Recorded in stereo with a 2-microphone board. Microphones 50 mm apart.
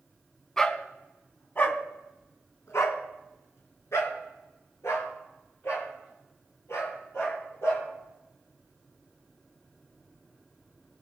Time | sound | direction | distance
0.6 | a dog barking | 15° left (ahead or behind) | 1.6 m